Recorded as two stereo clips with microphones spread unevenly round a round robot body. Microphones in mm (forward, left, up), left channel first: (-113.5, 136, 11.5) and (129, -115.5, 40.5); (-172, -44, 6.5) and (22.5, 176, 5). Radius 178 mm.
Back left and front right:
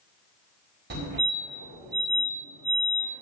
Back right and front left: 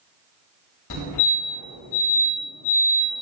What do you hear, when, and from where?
0.9 s a fire alarm: 110° right, 4 m